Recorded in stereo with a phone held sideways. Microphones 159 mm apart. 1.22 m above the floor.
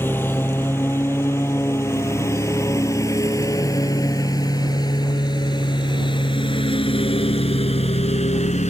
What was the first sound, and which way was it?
A lawn mower, 10° left (ahead or behind).